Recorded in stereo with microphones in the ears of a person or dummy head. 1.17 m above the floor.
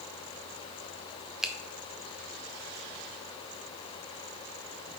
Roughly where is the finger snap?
Centre.